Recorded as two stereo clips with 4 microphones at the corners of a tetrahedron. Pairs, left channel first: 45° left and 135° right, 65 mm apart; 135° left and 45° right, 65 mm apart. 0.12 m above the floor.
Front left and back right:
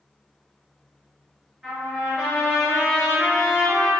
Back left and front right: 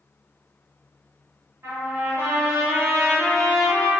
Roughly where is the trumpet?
Ahead right.